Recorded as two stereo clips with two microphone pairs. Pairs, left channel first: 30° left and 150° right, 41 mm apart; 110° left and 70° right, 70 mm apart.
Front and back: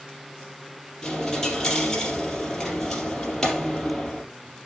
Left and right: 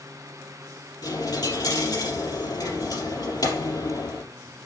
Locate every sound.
1.0 s a dropped coin: 110° left, 3.5 m